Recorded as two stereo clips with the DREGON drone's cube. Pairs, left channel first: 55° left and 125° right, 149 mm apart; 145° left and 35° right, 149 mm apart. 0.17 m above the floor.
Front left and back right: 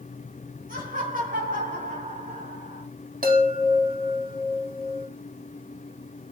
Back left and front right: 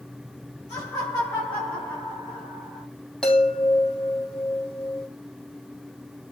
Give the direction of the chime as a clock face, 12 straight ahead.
4 o'clock.